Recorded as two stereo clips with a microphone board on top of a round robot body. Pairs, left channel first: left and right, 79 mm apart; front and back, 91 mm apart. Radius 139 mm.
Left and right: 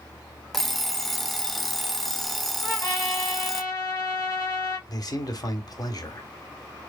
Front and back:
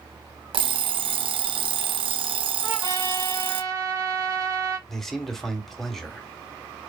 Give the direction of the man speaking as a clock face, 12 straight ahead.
9 o'clock.